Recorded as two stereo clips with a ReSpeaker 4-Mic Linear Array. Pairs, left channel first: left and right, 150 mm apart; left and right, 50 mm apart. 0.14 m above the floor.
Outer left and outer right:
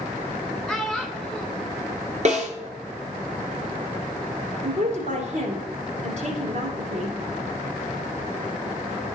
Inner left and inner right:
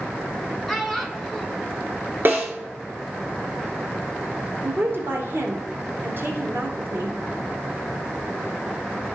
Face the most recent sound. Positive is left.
turn(degrees=-50)  # may be behind; listen again after turning